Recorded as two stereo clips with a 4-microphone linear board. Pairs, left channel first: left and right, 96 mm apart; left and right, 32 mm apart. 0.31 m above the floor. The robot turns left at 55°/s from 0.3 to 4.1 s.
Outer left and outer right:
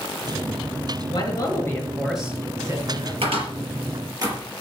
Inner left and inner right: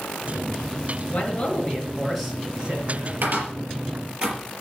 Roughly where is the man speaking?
Ahead left.